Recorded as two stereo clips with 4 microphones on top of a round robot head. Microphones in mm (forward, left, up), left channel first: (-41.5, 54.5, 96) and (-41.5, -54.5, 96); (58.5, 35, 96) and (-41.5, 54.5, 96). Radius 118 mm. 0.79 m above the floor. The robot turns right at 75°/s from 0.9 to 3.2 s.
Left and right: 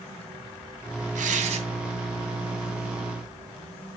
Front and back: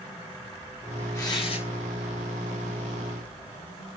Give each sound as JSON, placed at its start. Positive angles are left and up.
{"t": 1.1, "sound": "tearing paper", "azimuth_deg": -80, "distance_m": 2.5}